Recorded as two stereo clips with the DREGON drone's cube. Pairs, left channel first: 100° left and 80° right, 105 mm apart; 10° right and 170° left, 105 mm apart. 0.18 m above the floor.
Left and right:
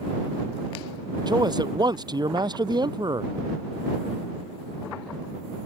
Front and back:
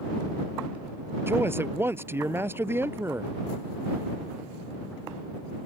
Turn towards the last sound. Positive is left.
turn(degrees=-125)